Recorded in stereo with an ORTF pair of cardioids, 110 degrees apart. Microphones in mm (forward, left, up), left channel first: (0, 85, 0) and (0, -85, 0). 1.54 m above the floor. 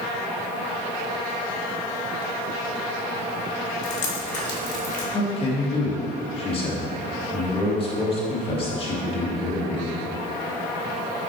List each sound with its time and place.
3.8 s dripping: 45° left, 2 m
5.1 s a man speaking: 35° left, 2 m